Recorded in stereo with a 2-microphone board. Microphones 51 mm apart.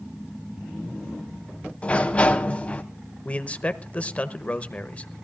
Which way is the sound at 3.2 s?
30° left (ahead or behind).